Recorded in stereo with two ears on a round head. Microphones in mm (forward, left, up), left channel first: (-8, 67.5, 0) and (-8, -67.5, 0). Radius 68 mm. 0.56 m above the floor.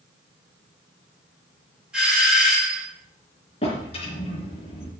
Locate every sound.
1.9 s a doorbell: 5° right (ahead or behind), 5 m
3.6 s a drawer: 40° left (ahead or behind), 3 m